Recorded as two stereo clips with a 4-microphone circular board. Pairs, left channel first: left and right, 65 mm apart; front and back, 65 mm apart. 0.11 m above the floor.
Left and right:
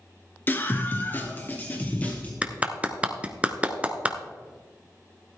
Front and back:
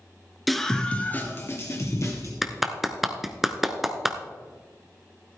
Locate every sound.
0.5 s a scream: 90° left, 1.3 m; by 2.3 s 25° left, 2.5 m
2.4 s a clap: 105° right, 0.9 m